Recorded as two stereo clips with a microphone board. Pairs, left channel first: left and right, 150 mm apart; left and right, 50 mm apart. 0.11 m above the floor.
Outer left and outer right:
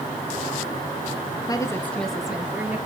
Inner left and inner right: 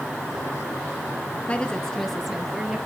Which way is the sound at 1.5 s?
25° left (ahead or behind).